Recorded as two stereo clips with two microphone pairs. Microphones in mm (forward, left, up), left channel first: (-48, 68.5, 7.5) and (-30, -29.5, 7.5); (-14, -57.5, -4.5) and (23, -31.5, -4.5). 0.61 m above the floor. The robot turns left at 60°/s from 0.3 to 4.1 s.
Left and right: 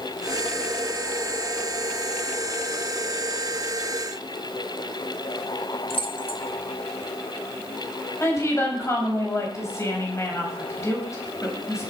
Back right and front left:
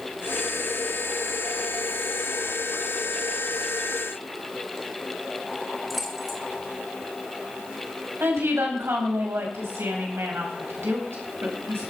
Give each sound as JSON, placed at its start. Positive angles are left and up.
{"t": 5.9, "sound": "keys jangling", "azimuth_deg": 125, "distance_m": 1.6}
{"t": 8.2, "sound": "a woman speaking", "azimuth_deg": 40, "distance_m": 4.0}